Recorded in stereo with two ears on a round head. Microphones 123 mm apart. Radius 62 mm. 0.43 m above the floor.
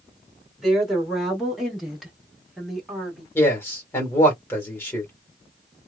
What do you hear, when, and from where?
0.6 s a woman speaking: centre (ahead or behind), 1.6 m
3.4 s a man speaking: 20° left (ahead or behind), 1.4 m